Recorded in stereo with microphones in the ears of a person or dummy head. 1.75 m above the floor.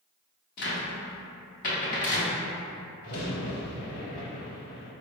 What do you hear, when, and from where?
0.6 s a cupboard door: 55° left (ahead or behind), 0.8 m
3.0 s a crack: 50° left (ahead or behind), 1.0 m